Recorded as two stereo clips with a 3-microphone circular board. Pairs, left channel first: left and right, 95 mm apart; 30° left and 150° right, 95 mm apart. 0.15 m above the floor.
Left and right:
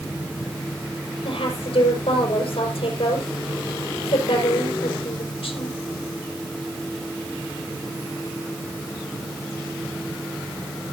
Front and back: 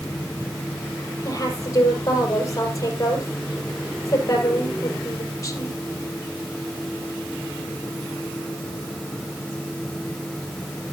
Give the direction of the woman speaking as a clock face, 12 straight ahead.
9 o'clock.